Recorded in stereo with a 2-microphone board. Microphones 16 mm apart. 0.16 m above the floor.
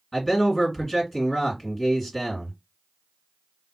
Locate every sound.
0.1 s a man speaking: 25° left (ahead or behind), 2 m